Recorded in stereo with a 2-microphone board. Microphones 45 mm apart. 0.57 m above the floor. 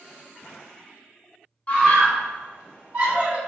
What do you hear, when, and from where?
1.7 s a scream: 30° left (ahead or behind), 1.4 m; by 3.4 s 30° right (ahead or behind), 1.5 m